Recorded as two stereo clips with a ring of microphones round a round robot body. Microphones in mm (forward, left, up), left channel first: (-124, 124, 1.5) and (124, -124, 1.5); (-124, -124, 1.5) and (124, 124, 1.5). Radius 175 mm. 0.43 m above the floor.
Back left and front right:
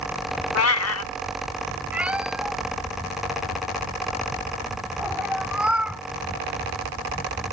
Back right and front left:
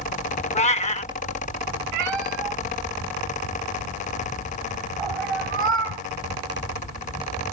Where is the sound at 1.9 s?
40° left.